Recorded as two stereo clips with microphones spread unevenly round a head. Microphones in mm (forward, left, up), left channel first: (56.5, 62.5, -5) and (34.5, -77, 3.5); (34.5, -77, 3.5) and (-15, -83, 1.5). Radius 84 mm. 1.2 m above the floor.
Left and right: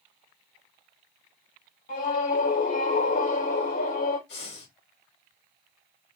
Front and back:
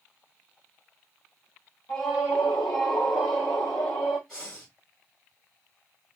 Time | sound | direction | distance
1.9 | a scream | 60° left | 2 m
4.3 | breathing | 95° left | 3 m